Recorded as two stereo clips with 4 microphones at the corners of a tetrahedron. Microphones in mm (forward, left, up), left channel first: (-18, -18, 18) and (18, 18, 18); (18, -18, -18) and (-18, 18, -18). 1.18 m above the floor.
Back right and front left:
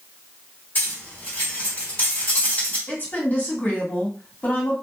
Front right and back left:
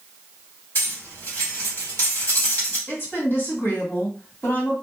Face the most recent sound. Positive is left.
turn(degrees=-85)